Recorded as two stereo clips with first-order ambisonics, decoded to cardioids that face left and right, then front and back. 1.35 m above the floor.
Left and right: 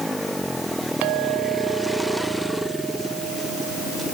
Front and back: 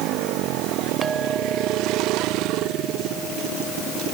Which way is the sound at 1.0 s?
105° right.